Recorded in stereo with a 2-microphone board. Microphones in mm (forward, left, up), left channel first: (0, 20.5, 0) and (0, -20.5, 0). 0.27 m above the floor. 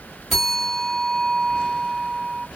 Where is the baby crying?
I don't hear a baby crying.